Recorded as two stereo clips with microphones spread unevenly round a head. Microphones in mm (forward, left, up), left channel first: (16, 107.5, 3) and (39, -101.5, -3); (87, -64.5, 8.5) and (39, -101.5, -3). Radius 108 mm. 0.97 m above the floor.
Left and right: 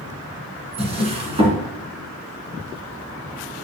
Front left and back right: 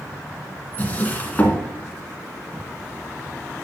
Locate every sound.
0.8 s a drawer: 20° right, 3 m